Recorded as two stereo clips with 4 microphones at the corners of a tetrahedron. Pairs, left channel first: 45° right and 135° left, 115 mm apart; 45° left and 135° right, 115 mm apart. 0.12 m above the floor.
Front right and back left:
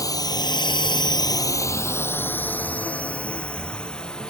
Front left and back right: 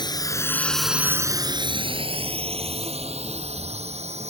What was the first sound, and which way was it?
A drone, 5° left.